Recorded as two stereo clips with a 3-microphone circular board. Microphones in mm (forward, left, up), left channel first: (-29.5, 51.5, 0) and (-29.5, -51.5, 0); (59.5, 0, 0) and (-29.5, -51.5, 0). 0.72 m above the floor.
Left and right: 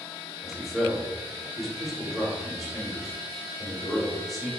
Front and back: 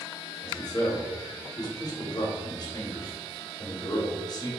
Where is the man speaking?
Straight ahead, 0.9 m.